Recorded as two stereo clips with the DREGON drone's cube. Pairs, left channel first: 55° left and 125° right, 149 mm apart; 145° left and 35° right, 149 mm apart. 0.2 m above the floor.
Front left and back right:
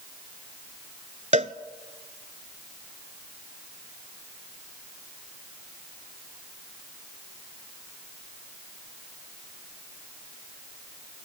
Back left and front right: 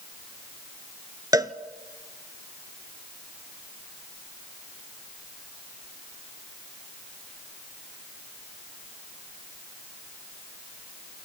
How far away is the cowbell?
About 0.8 m.